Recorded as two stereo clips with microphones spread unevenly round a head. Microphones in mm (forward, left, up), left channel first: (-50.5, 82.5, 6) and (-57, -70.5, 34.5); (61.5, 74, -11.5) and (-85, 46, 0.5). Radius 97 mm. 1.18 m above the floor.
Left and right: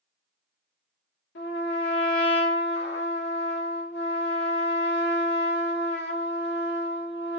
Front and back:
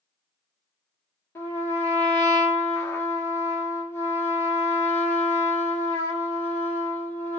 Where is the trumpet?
85° left, 1.2 m.